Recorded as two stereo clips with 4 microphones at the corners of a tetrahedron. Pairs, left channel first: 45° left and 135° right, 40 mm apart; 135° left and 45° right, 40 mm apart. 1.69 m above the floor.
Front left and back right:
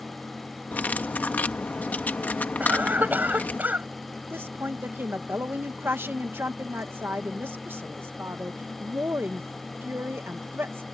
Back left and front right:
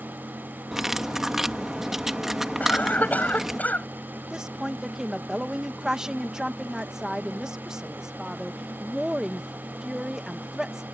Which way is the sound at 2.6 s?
175° right.